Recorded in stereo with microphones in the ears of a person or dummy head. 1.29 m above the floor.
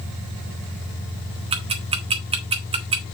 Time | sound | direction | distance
1.5 | ticking | 25° right (ahead or behind) | 1.3 m